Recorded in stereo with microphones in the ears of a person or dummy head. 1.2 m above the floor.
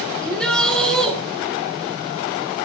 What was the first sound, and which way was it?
A shout, centre (ahead or behind).